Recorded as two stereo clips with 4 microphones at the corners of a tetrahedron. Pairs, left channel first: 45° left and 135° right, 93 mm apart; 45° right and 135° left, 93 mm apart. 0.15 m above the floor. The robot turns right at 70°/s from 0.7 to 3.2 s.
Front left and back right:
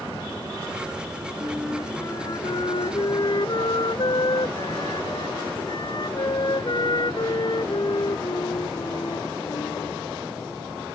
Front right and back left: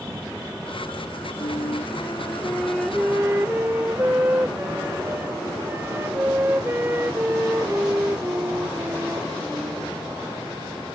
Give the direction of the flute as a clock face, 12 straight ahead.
2 o'clock.